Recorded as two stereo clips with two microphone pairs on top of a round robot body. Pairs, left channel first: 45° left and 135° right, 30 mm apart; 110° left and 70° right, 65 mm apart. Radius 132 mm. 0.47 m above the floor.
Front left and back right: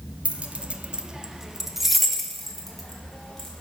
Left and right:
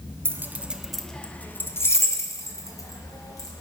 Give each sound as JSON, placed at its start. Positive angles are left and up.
{"t": 0.2, "sound": "keys jangling", "azimuth_deg": -115, "distance_m": 0.9}